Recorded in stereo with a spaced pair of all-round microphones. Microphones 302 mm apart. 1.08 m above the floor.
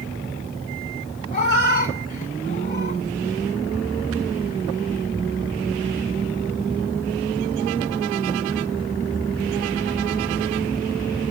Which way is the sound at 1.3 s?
30° left (ahead or behind).